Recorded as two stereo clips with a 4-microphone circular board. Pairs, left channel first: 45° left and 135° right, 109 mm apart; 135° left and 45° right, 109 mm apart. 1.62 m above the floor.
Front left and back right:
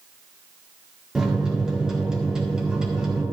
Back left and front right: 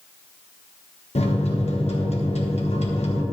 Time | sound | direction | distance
1.1 | a microwave | 140° left | 1.4 m